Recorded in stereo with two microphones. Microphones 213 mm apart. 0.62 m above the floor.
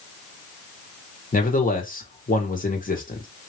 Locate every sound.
1.3 s a man speaking: 40° left (ahead or behind), 1.4 m